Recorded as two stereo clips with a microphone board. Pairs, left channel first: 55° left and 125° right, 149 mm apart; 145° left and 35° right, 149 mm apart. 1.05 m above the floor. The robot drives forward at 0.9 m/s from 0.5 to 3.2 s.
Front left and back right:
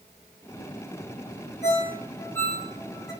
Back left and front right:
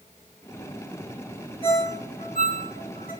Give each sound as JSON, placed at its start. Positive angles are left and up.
{"t": 1.6, "sound": "a ringtone", "azimuth_deg": 95, "distance_m": 1.1}